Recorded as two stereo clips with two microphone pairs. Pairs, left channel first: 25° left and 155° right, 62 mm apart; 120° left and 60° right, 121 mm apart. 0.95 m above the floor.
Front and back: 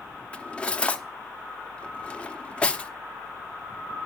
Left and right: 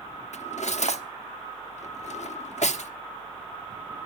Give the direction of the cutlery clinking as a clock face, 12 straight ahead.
9 o'clock.